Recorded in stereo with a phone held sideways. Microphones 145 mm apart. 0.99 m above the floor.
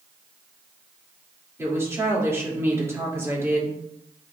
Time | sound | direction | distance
1.6 | a woman speaking | 20° right (ahead or behind) | 3 m